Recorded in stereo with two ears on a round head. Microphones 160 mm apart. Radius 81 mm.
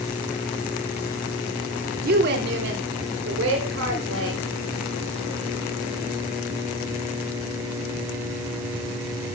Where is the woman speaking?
55° right (ahead or behind), 2.5 m; by 4.4 s 85° right, 5 m.